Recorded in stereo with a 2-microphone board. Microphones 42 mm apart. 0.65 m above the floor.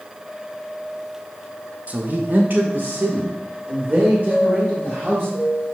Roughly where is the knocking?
I don't hear knocking.